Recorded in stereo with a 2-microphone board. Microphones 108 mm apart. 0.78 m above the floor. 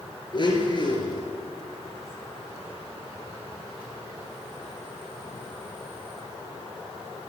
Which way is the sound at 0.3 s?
45° left (ahead or behind).